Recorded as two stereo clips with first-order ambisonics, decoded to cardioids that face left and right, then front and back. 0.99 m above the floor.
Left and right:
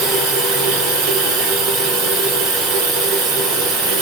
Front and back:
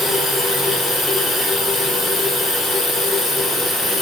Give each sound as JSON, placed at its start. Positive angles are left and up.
{"t": 0.0, "sound": "running water", "azimuth_deg": -85, "distance_m": 1.6}